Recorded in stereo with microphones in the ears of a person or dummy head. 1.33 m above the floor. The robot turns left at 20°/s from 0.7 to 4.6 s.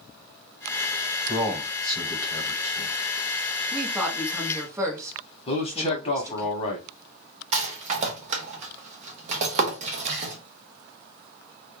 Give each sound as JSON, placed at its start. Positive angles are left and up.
{"t": 1.3, "sound": "a man speaking", "side_deg": -5, "distance_m": 1.0}
{"t": 3.7, "sound": "a woman speaking", "side_deg": -5, "distance_m": 0.8}
{"t": 5.5, "sound": "a man speaking", "side_deg": 30, "distance_m": 0.9}
{"t": 7.5, "sound": "a rattle", "side_deg": -50, "distance_m": 0.7}